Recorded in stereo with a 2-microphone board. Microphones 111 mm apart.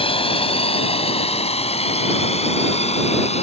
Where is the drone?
55° left (ahead or behind); by 3.4 s 70° left (ahead or behind).